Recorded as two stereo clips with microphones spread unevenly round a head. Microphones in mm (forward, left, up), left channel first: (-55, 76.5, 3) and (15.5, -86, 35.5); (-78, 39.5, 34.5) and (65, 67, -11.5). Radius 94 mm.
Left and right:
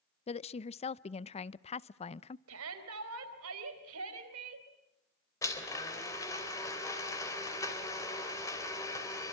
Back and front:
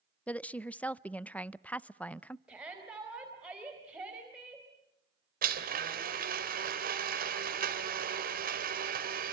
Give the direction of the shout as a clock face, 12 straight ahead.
2 o'clock.